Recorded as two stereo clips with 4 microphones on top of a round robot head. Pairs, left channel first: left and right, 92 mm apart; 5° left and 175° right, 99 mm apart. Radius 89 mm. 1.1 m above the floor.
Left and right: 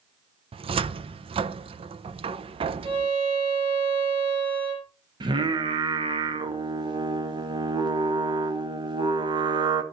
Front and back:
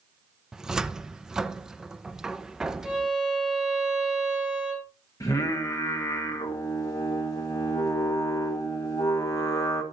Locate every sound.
0.5 s a cupboard door: 90° right, 0.6 m
2.8 s a violin: 85° right, 5 m
5.2 s singing: 55° right, 1.7 m